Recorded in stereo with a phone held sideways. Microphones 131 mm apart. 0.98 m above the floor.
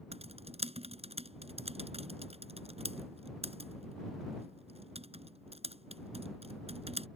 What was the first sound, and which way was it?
Typing on a keyboard, 50° right (ahead or behind).